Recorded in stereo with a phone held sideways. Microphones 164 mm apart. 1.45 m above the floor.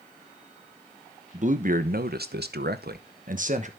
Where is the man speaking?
45° right (ahead or behind), 1.2 m.